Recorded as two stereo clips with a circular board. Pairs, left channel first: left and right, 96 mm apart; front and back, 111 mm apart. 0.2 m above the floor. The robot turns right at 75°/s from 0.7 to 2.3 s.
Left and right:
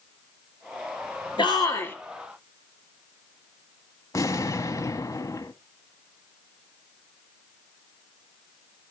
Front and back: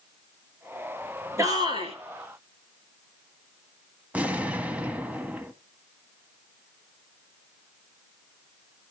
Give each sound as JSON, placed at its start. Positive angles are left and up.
{"t": 1.4, "sound": "a shout", "azimuth_deg": 115, "distance_m": 3.5}
{"t": 4.1, "sound": "an explosion", "azimuth_deg": 110, "distance_m": 1.0}